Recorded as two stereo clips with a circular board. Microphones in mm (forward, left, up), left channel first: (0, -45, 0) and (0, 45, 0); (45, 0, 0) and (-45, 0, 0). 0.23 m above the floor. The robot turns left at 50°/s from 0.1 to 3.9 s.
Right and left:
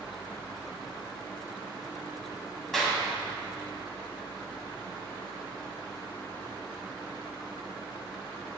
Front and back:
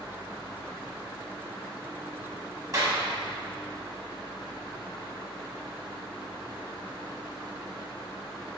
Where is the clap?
170° right, 1.6 m; by 3.0 s 175° left, 1.6 m.